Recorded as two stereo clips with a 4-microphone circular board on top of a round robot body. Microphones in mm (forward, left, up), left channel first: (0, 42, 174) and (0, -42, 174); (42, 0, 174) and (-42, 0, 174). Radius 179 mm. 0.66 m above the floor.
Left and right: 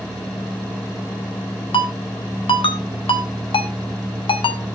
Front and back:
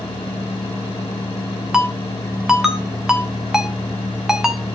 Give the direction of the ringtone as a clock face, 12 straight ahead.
9 o'clock.